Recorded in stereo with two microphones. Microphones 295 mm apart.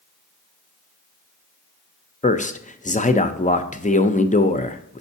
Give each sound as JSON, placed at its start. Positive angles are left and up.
{"t": 2.2, "sound": "a man speaking", "side_deg": 25, "distance_m": 0.5}